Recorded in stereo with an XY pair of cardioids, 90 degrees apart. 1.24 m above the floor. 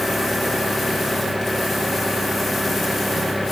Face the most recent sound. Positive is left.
turn(degrees=10)